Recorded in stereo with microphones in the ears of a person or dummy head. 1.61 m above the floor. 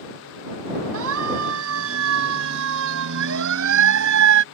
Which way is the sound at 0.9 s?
65° right (ahead or behind).